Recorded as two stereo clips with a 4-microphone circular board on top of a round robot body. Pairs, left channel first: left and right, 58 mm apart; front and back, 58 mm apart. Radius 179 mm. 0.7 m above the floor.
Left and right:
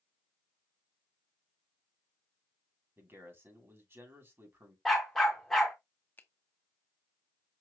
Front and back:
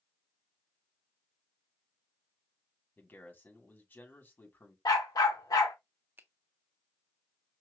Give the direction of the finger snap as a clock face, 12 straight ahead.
7 o'clock.